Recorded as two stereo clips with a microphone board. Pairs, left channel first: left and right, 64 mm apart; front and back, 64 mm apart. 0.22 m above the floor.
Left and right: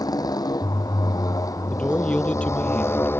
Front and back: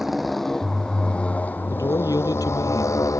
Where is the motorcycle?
95° left; by 3.2 s 35° left.